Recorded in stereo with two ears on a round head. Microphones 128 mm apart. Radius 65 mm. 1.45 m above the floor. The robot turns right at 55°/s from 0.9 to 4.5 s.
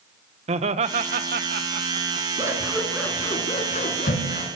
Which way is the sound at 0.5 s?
50° right (ahead or behind).